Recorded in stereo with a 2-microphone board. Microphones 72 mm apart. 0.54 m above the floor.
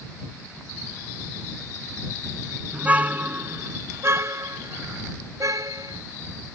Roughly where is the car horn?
Centre.